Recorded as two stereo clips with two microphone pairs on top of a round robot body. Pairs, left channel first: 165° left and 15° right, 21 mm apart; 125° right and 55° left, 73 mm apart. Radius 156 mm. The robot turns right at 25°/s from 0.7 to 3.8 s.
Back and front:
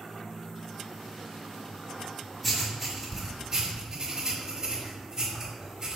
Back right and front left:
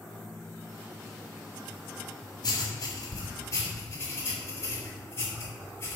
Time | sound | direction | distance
2.4 | writing | 100° right | 4 m